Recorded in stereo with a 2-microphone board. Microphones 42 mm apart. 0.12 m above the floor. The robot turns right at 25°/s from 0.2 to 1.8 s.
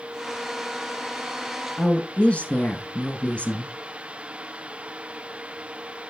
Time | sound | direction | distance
1.8 | a woman speaking | 30° left (ahead or behind) | 1.3 m